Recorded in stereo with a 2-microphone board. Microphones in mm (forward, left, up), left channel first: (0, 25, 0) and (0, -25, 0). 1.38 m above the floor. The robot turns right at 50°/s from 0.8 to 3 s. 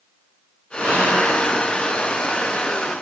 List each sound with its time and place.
0.8 s whispering: 60° right (ahead or behind), 2 m; by 1.3 s 85° right, 2 m